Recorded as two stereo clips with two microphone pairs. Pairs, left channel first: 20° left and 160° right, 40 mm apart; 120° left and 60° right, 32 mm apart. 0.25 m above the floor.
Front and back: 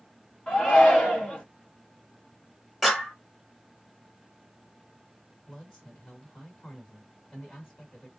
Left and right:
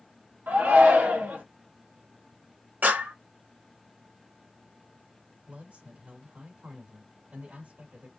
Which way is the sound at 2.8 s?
70° right.